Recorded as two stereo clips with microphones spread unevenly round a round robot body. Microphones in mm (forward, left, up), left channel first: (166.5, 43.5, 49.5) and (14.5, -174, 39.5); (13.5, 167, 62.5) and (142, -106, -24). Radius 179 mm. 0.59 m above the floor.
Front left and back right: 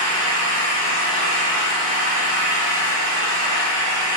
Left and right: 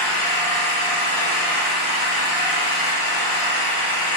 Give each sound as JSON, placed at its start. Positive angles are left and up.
{"t": 0.0, "sound": "an engine running", "azimuth_deg": 100, "distance_m": 1.3}